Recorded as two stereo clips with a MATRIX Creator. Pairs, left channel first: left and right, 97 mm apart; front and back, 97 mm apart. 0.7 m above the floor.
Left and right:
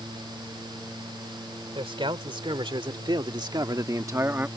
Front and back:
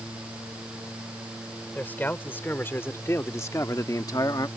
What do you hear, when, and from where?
1.8 s a man speaking: 70° right; by 4.5 s 25° right